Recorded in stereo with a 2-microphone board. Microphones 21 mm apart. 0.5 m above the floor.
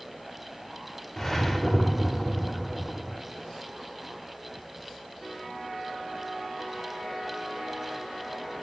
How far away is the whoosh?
About 0.7 m.